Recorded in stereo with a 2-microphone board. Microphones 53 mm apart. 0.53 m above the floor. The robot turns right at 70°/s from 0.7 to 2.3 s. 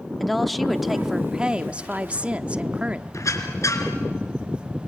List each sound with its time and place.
0.2 s a woman speaking: 5° left (ahead or behind), 0.7 m; by 3.0 s 20° right (ahead or behind), 0.7 m
3.1 s a squeak: 70° left (ahead or behind), 2.5 m